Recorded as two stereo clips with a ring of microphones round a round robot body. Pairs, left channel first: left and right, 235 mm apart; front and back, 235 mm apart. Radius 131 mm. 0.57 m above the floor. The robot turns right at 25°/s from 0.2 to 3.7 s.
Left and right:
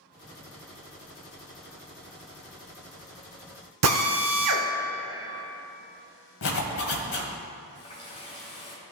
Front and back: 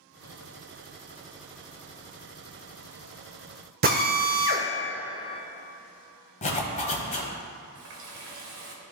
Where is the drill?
125° right, 0.7 m.